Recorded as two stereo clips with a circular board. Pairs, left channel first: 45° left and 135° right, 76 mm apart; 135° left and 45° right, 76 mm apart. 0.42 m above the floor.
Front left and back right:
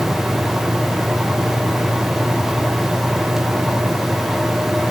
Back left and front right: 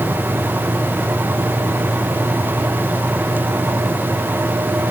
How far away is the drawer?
No drawer in this recording.